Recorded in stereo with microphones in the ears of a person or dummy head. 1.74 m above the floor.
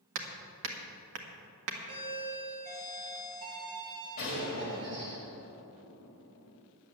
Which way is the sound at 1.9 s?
55° right (ahead or behind).